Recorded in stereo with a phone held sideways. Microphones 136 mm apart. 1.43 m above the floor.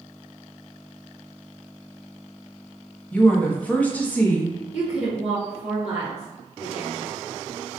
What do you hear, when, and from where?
3.1 s a woman speaking: 10° left (ahead or behind), 0.9 m
4.7 s a woman speaking: 10° right (ahead or behind), 1.7 m